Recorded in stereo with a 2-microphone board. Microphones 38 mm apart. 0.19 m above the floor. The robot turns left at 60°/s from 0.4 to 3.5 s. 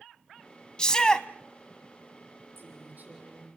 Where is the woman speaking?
100° right, 7.5 m; by 3.5 s 160° right, 7.5 m.